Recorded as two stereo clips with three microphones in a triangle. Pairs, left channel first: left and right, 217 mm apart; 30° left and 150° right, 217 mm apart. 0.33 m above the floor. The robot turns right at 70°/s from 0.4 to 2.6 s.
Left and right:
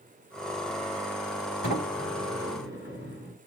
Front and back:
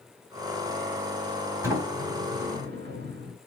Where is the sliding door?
135° left, 1.7 m; by 3.4 s 160° right, 1.7 m.